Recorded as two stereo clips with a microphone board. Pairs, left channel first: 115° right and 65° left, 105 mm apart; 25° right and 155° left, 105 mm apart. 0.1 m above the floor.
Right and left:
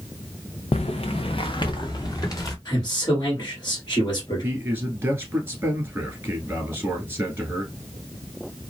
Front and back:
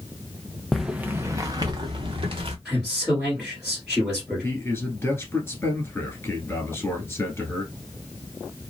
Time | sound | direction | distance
0.7 | footsteps | 110° right | 0.5 m
2.6 | a man speaking | 115° right | 1.7 m
4.4 | a man speaking | 20° left | 1.3 m